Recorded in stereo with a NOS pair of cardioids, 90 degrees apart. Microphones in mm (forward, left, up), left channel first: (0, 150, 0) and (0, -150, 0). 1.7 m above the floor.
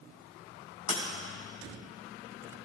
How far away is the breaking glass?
About 5 m.